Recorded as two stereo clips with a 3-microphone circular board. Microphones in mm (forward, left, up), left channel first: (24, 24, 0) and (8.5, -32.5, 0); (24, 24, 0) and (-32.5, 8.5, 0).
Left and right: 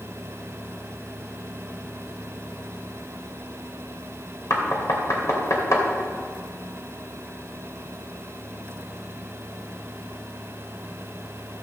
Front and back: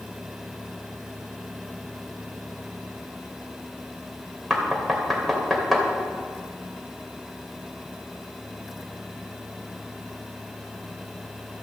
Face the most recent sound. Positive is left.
turn(degrees=105)